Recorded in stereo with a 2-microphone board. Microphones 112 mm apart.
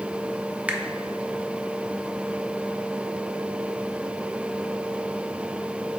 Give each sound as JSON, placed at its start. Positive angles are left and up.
{"t": 0.7, "sound": "a finger snap", "side_deg": -10, "distance_m": 0.6}